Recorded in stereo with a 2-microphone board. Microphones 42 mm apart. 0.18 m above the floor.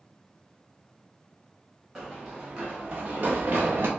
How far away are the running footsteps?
About 1.9 m.